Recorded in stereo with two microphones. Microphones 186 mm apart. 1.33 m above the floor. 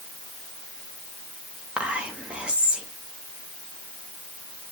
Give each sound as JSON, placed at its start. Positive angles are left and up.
{"t": 1.8, "sound": "whispering", "side_deg": -5, "distance_m": 2.0}